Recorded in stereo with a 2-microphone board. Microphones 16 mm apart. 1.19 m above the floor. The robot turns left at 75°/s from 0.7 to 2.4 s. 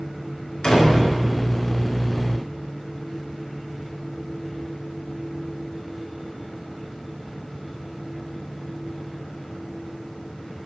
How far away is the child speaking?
I don't hear a child speaking.